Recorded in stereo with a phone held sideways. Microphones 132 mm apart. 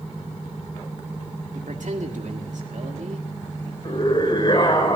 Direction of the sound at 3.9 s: 40° left (ahead or behind).